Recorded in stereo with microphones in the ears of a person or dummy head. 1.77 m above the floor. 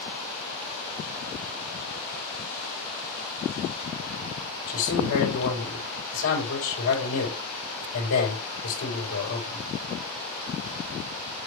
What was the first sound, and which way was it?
A man speaking, 70° left (ahead or behind).